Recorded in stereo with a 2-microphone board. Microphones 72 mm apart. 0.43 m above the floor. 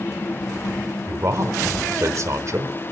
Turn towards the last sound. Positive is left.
turn(degrees=-50)  # may be behind; listen again after turning